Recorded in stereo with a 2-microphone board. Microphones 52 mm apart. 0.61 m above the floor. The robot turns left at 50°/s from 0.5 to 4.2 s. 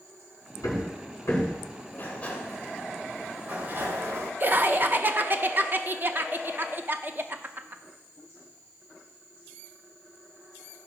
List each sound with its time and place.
0.6 s hammering: 85° left, 4.5 m; by 1.8 s 25° left (ahead or behind), 4.5 m
1.9 s a sliding door: 45° left, 1.8 m; by 4.3 s 70° right, 1.8 m
4.4 s laughter: 40° right (ahead or behind), 0.7 m